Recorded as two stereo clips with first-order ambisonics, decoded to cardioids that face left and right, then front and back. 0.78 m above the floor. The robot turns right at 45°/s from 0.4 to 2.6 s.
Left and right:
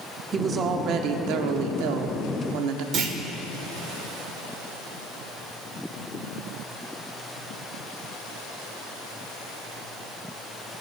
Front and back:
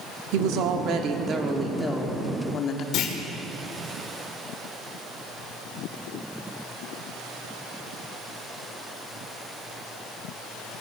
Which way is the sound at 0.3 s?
155° right.